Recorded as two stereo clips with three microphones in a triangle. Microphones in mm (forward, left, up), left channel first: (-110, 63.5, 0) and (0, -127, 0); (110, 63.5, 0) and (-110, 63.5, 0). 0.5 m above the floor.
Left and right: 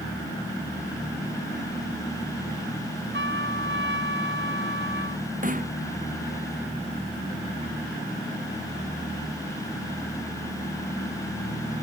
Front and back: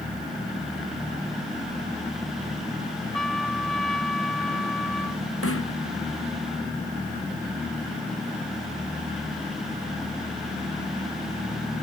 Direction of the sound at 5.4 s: 5° right.